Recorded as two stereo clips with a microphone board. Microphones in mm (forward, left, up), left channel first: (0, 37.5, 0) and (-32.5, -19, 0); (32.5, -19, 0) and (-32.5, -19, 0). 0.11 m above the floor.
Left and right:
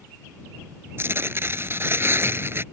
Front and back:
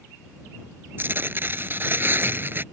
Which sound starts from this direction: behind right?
Tearing paper, at 1.0 s.